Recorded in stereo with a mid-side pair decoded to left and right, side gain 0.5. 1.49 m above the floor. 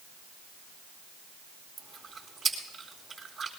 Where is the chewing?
30° right, 4 m.